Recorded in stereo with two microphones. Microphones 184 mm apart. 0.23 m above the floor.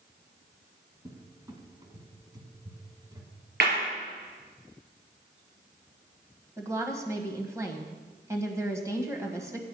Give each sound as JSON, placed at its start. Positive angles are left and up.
{"t": 1.1, "sound": "a cupboard door", "side_deg": -20, "distance_m": 1.8}
{"t": 3.6, "sound": "a clap", "side_deg": -70, "distance_m": 4.0}
{"t": 6.6, "sound": "a woman speaking", "side_deg": -15, "distance_m": 1.4}